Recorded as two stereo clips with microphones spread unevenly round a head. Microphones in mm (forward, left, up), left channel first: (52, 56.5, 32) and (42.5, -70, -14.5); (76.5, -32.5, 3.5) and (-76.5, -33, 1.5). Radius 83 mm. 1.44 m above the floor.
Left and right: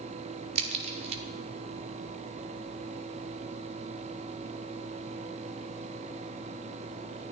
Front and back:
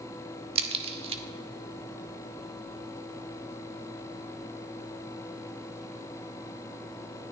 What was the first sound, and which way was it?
A crack, 150° right.